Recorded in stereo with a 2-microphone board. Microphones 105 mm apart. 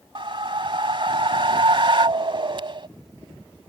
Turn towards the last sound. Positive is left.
turn(degrees=-55)  # may be behind; listen again after turning